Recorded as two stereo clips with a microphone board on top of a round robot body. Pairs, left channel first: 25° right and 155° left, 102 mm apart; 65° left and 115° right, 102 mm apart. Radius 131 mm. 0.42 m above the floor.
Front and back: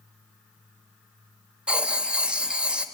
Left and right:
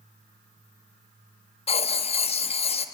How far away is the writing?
About 1.2 m.